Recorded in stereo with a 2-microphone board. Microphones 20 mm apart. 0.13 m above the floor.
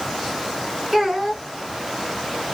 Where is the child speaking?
10° right (ahead or behind), 1.0 m.